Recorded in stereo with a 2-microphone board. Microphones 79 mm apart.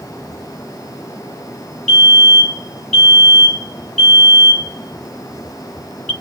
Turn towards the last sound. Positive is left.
turn(degrees=10)  # may be behind; listen again after turning